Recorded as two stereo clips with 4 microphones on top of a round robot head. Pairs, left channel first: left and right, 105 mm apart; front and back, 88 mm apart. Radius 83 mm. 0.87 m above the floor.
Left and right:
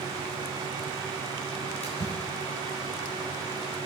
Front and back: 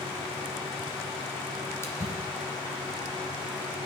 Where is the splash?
60° left, 1.9 m.